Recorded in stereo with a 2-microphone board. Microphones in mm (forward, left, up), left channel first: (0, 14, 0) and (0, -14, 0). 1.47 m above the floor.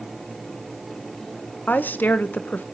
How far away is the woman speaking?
About 1.1 m.